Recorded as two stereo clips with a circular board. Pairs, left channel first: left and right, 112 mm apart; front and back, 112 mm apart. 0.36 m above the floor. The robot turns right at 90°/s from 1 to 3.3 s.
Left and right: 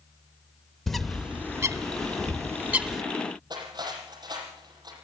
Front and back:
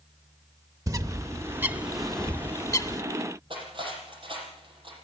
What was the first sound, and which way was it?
A bird, 175° left.